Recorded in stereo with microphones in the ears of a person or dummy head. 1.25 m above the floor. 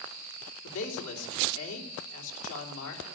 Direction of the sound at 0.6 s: 75° left (ahead or behind).